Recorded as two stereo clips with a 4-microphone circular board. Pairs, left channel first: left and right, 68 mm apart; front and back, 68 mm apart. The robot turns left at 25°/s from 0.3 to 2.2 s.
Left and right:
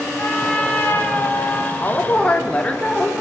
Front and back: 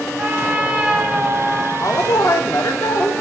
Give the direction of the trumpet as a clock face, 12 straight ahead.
8 o'clock.